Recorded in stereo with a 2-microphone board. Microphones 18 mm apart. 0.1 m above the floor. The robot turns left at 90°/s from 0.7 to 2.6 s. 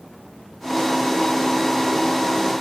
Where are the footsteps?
No footsteps in this recording.